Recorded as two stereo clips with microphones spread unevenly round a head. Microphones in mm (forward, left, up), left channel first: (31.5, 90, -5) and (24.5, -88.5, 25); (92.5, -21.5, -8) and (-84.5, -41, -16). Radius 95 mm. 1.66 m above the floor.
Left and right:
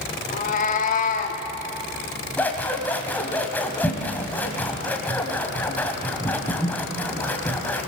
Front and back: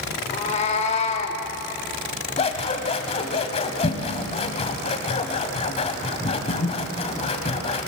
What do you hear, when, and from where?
0.3 s a cat meowing: 45° left, 1.5 m
2.4 s scissors: straight ahead, 1.8 m